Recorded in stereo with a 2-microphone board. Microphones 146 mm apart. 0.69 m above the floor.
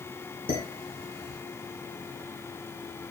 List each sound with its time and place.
0.5 s dishes clattering: 85° left, 4.5 m